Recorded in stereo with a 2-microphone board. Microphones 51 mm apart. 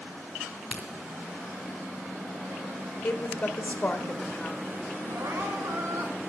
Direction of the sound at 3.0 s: 40° left (ahead or behind).